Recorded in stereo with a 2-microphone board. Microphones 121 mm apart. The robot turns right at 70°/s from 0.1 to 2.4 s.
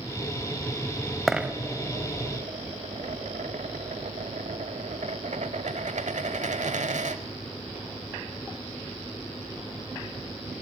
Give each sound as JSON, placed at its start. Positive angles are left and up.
{"t": 1.3, "sound": "a dropped coin", "side_deg": 0, "distance_m": 0.9}